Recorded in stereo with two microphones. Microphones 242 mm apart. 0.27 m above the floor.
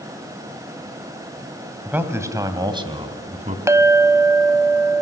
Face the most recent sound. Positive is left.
turn(degrees=-10)  # may be behind; listen again after turning